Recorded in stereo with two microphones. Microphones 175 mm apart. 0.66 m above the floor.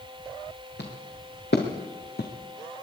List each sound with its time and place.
0.8 s footsteps: 75° left (ahead or behind), 4 m; by 2.3 s 65° left (ahead or behind), 2 m